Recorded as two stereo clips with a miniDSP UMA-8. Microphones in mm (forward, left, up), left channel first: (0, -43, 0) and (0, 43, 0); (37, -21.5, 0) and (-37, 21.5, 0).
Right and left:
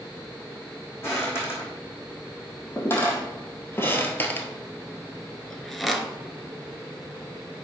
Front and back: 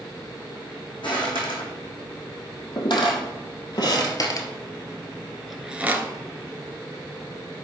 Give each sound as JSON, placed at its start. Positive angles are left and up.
{"t": 1.0, "sound": "footsteps", "azimuth_deg": -30, "distance_m": 3.5}